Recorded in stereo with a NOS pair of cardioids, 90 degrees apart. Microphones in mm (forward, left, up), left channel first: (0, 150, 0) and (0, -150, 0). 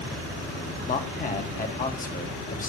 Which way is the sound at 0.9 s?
25° left.